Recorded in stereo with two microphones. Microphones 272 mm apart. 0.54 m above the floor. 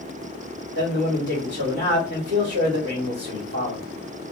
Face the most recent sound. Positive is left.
turn(degrees=-45)  # may be behind; listen again after turning